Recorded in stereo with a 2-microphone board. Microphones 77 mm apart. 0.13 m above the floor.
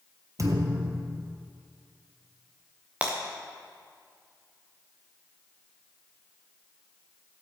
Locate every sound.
0.4 s a thud: 45° right (ahead or behind), 1.2 m
3.0 s breaking glass: 20° right (ahead or behind), 2 m